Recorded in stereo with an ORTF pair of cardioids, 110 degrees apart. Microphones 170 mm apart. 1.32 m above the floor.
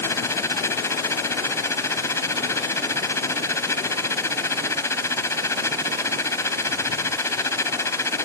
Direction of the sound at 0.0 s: 15° left.